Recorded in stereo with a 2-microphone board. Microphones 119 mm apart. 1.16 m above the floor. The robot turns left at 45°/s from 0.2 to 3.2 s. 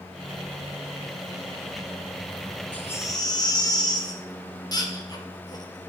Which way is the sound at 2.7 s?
10° left (ahead or behind).